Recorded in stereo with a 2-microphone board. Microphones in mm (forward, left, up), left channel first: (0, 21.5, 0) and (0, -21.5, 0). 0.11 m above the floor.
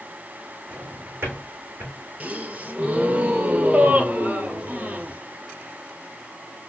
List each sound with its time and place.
0.7 s a drawer: 50° right (ahead or behind), 3.5 m
2.2 s a gasp: 40° right (ahead or behind), 0.7 m